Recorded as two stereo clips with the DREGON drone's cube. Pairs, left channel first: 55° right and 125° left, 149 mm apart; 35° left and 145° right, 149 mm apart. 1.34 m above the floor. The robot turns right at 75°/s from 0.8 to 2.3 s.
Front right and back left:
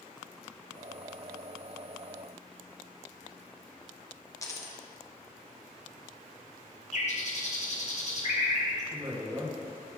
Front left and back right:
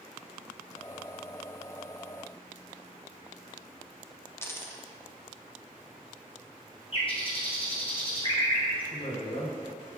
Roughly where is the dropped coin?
Ahead.